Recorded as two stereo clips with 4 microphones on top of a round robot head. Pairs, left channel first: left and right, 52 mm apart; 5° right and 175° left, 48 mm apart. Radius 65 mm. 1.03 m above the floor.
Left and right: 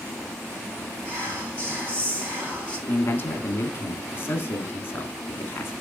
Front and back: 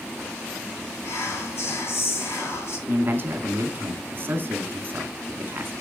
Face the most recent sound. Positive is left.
turn(degrees=130)